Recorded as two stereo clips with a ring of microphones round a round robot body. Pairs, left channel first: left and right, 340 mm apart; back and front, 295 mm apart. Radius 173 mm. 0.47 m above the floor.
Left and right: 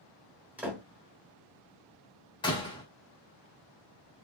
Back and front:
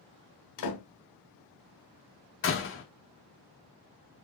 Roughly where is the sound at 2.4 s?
Behind.